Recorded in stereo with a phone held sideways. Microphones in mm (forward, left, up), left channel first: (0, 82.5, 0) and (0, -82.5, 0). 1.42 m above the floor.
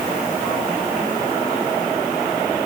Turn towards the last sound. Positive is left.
No sound to turn to.